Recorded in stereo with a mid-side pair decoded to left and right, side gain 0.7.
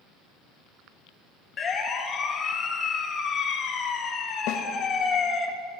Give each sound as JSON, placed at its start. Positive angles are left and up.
{"t": 1.6, "sound": "a siren", "azimuth_deg": 35, "distance_m": 2.0}
{"t": 4.5, "sound": "a snare drum", "azimuth_deg": 65, "distance_m": 1.3}